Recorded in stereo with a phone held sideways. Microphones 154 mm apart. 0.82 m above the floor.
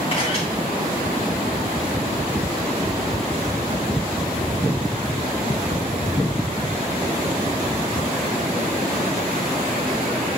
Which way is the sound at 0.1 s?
40° left (ahead or behind).